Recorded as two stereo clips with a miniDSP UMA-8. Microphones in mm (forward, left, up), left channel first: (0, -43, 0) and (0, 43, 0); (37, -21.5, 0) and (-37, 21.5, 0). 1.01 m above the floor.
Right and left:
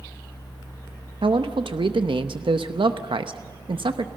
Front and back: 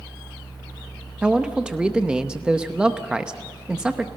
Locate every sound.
1.2 s a man speaking: 70° left, 0.8 m